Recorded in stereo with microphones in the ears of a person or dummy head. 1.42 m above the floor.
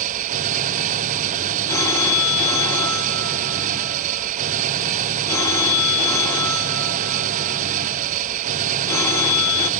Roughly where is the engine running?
Right.